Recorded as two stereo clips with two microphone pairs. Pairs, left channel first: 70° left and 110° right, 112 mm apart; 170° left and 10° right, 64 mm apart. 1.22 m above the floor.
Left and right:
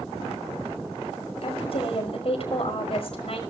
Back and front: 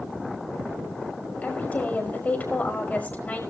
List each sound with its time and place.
1.4 s a woman speaking: 105° left, 5.5 m